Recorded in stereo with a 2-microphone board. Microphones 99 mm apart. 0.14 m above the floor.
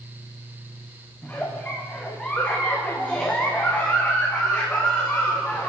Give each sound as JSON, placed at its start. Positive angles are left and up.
{"t": 1.2, "sound": "a giggle", "side_deg": 15, "distance_m": 3.0}